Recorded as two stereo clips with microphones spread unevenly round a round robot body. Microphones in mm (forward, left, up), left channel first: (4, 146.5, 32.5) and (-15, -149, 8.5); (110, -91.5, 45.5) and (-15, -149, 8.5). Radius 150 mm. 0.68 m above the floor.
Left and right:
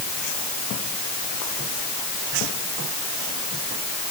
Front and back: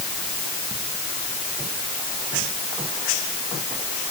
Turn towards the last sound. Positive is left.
No sound to turn to.